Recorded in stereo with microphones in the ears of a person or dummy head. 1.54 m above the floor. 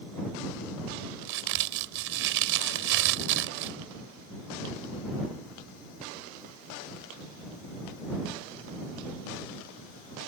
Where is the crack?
65° right (ahead or behind).